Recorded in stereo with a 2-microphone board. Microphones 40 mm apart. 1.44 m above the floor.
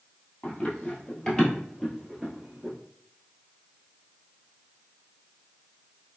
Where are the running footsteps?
30° left (ahead or behind), 1.6 m; by 2.7 s 15° right (ahead or behind), 1.5 m.